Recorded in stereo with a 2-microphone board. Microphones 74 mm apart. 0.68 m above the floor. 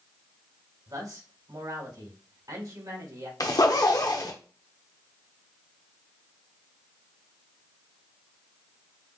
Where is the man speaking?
60° right (ahead or behind), 3 m.